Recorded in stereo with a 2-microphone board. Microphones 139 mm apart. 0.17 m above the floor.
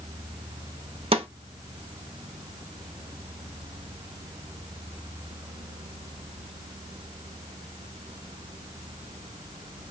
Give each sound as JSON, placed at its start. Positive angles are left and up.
{"t": 1.1, "sound": "a snare drum", "side_deg": -40, "distance_m": 0.5}